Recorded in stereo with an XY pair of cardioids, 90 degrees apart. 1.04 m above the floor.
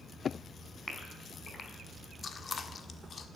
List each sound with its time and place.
0.9 s a gasp: 35° left, 4.5 m
2.2 s chewing: 50° left, 1.4 m